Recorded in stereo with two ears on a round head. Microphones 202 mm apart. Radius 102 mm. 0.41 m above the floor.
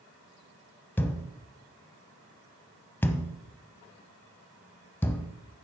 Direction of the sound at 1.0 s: 10° left (ahead or behind).